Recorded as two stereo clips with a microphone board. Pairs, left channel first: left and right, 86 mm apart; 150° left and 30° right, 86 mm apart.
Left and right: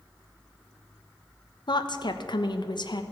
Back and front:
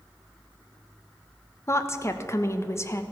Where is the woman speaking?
95° left, 1.1 m.